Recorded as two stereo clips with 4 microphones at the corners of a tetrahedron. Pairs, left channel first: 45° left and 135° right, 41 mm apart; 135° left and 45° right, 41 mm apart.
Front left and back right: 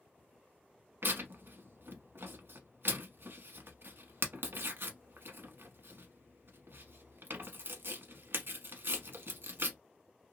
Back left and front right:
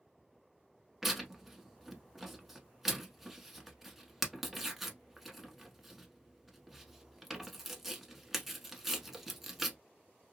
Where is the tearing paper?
130° right, 0.8 m.